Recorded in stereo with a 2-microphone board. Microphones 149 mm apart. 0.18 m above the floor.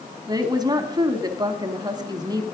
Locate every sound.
0.3 s a woman speaking: 25° right (ahead or behind), 1.2 m